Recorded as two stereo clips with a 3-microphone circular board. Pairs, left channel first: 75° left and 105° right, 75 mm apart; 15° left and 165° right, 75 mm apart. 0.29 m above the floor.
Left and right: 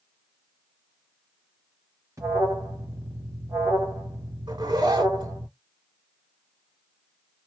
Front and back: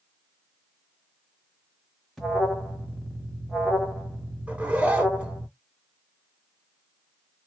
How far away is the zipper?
About 0.6 m.